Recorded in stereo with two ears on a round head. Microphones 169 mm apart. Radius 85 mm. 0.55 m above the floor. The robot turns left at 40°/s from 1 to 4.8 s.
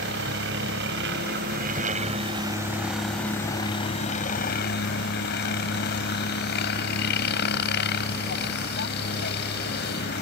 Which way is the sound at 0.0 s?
100° right.